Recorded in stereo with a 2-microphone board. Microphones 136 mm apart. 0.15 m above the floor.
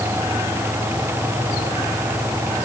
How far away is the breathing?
I don't hear breathing.